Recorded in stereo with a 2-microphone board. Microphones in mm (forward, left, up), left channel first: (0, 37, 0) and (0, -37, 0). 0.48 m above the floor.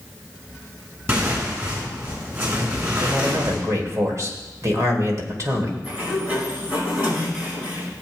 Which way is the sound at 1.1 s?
35° right (ahead or behind).